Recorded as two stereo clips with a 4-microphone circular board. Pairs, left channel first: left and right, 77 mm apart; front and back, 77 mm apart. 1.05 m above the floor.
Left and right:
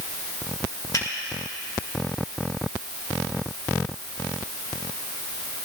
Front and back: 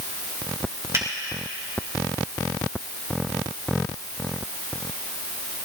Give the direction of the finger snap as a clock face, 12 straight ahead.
8 o'clock.